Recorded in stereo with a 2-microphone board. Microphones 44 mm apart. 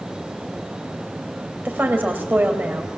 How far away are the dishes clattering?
No dishes clattering in this recording.